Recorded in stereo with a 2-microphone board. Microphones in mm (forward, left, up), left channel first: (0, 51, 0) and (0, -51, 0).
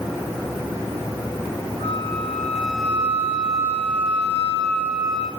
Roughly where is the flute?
Left.